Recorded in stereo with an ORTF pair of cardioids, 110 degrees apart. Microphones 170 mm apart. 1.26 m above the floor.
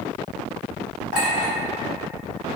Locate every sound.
1.1 s a clink: 65° left, 1.4 m